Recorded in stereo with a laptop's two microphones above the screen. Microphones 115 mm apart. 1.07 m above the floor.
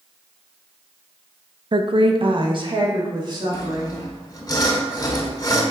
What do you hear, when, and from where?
1.7 s a woman speaking: 45° right (ahead or behind), 0.6 m; by 4.5 s 40° right (ahead or behind), 3.5 m
3.5 s sawing: 35° left (ahead or behind), 2.0 m